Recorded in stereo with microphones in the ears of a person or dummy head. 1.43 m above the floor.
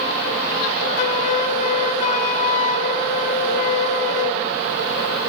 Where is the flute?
40° left (ahead or behind), 4 m.